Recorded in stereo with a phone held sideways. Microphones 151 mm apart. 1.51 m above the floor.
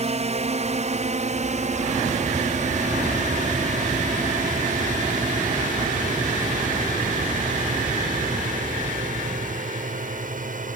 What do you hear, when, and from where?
0.0 s a drone: 50° right (ahead or behind); by 10.8 s 65° right (ahead or behind)